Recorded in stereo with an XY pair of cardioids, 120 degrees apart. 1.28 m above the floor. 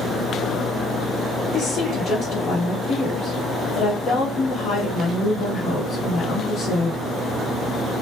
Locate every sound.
1.5 s a woman speaking: 60° left, 1.0 m